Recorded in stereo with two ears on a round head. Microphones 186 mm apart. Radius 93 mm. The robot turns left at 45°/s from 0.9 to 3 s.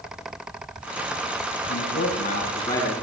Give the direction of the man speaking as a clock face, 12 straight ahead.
10 o'clock.